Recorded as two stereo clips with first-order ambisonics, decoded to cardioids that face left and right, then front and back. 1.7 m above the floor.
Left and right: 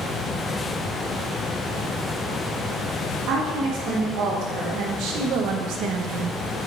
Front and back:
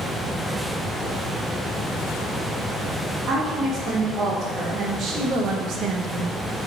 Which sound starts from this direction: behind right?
A woman speaking, at 3.3 s.